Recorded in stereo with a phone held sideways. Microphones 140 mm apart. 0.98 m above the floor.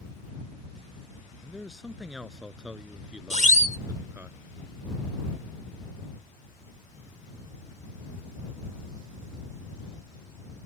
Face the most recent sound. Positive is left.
turn(degrees=-60)  # may be behind; listen again after turning